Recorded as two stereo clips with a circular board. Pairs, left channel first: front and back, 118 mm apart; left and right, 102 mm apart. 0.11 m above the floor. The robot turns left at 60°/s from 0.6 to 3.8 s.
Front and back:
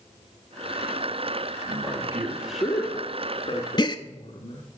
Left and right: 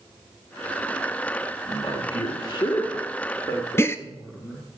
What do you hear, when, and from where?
1.7 s a man speaking: 145° left, 1.8 m; by 4.7 s 20° left, 1.8 m
3.8 s a gasp: 35° left, 0.6 m